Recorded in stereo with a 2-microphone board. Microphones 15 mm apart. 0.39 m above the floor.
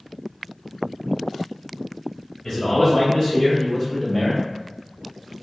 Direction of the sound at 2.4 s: 15° left (ahead or behind).